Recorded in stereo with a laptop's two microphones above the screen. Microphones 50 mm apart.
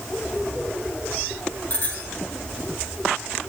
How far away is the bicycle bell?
About 9 m.